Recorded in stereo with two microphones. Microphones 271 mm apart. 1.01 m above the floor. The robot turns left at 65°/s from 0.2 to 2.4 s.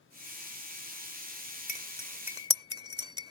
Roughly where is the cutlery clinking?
Left.